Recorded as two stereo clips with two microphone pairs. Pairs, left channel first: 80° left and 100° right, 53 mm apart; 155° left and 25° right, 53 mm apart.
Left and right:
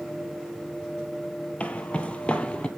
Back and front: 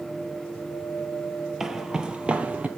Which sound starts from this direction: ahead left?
Footsteps, at 1.6 s.